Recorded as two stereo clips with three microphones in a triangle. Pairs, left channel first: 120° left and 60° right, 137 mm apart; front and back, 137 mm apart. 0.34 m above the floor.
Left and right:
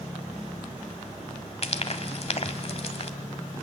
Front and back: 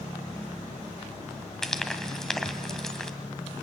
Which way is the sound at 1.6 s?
85° left.